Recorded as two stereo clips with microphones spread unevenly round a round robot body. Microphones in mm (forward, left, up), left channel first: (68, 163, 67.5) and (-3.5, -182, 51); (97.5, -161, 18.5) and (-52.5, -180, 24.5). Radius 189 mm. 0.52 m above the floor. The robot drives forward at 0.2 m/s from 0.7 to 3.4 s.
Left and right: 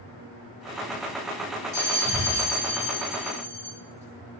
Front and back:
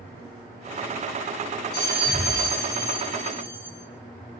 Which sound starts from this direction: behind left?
A bell, at 1.7 s.